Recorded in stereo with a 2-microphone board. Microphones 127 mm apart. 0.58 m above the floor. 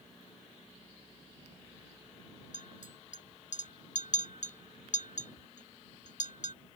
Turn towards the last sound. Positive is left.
turn(degrees=80)